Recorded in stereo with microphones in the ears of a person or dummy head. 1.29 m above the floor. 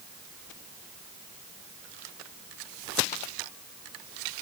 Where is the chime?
No chime in this recording.